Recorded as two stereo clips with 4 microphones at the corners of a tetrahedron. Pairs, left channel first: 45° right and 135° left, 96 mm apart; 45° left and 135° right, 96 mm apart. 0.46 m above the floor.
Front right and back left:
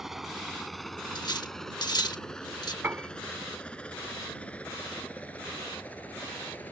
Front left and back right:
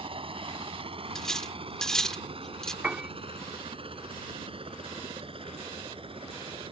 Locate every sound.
0.0 s a helicopter: 135° right; by 6.7 s 115° right
1.1 s cutlery clinking: 35° right
2.8 s a piano: 165° left